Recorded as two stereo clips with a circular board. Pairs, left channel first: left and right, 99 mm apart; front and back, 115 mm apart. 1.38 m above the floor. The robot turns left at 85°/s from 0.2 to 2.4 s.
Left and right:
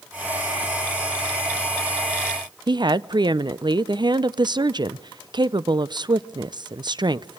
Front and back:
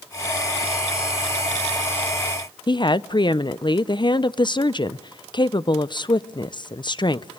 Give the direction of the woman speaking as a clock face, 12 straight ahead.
2 o'clock.